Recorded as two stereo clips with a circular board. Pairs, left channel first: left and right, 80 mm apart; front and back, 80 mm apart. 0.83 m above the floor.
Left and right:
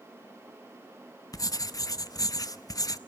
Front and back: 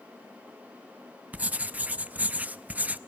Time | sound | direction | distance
1.3 | writing | 110° left | 0.6 m